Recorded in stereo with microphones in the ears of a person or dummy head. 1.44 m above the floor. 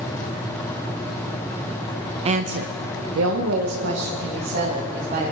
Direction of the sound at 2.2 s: 30° right (ahead or behind).